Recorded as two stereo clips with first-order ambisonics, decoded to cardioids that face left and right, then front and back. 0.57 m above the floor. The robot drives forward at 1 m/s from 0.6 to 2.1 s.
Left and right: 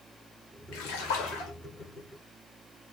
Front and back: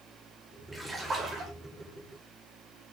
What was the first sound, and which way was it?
A splash, 95° left.